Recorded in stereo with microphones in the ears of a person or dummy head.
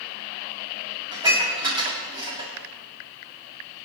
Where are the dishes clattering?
20° right (ahead or behind), 7 m.